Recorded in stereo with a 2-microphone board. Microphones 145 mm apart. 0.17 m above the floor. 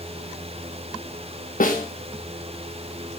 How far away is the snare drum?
About 3.5 m.